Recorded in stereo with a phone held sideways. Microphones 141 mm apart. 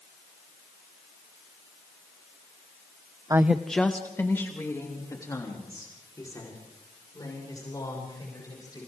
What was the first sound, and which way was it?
A woman speaking, 25° right (ahead or behind).